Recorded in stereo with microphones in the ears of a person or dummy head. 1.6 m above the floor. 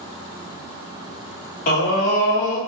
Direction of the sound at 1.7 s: 50° left (ahead or behind).